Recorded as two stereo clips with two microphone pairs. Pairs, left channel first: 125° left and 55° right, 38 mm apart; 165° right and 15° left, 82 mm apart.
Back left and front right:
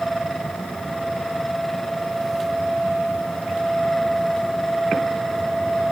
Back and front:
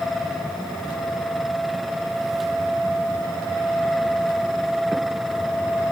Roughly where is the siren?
No siren in this recording.